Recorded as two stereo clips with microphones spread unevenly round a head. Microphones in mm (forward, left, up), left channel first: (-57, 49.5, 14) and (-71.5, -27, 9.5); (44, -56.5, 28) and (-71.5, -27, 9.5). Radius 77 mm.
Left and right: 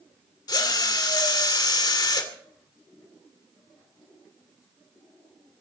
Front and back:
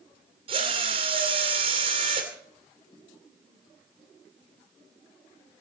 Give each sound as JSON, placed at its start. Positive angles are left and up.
{"t": 0.5, "sound": "a drill", "azimuth_deg": 110, "distance_m": 2.5}